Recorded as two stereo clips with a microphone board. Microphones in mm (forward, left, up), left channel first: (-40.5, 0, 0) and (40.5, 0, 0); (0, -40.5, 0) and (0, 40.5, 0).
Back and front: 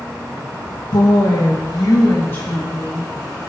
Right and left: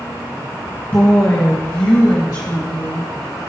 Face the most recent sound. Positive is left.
turn(degrees=-115)